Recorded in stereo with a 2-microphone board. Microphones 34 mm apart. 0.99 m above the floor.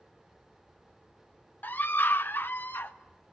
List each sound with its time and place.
1.6 s a scream: 60° left (ahead or behind), 0.8 m; by 3.0 s 75° left (ahead or behind), 1.4 m